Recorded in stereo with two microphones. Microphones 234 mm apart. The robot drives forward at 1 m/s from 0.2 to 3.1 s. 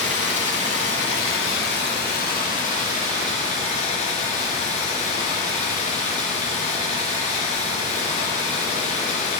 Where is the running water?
75° left (ahead or behind), 1.6 m; by 9.4 s 30° left (ahead or behind), 3 m.